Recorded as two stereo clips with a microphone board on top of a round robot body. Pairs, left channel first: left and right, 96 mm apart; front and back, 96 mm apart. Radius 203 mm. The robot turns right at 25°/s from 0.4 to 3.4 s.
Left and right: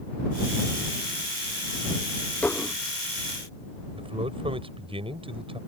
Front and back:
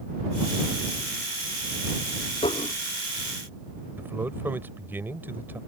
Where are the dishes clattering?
15° left; by 2.8 s 25° left.